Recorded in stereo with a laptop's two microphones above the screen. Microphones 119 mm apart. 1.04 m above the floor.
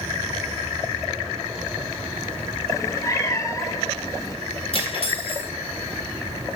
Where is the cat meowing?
25° left (ahead or behind), 0.5 m.